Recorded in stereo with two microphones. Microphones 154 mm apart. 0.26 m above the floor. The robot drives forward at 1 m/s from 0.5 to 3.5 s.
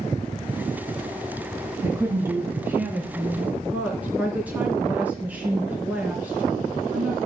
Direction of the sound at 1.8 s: 20° right (ahead or behind).